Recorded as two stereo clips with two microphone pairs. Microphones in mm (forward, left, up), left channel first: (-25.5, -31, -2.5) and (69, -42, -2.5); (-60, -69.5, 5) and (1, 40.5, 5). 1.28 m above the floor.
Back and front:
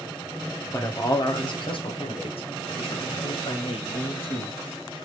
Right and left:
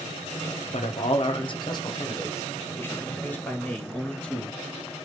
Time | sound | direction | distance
0.7 | a man speaking | 130° right | 1.0 m